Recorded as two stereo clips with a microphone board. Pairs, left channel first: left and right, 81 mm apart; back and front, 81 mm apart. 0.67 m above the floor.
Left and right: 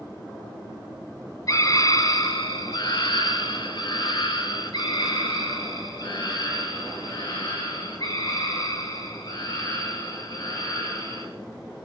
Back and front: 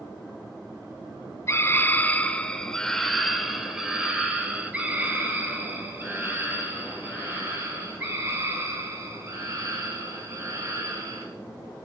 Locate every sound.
1.5 s a scream: 130° left, 2 m; by 11.2 s 50° left, 9.5 m